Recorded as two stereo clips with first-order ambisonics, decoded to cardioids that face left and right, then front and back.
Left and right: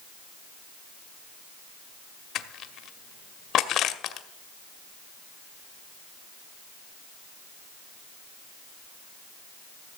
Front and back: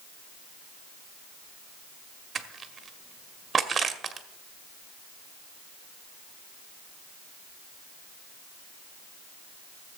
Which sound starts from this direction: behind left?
Crushing, at 2.4 s.